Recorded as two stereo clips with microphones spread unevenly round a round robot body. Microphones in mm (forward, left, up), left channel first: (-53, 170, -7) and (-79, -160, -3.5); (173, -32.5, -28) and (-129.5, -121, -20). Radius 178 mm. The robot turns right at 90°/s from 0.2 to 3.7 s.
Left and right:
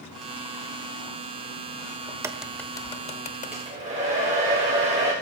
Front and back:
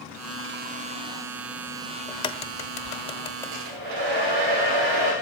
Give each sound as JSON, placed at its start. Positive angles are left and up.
{"t": 2.1, "sound": "a crack", "azimuth_deg": -40, "distance_m": 0.9}
{"t": 3.5, "sound": "a hair dryer", "azimuth_deg": 175, "distance_m": 8.0}